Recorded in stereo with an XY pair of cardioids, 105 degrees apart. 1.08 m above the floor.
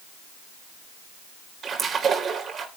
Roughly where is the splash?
Ahead right.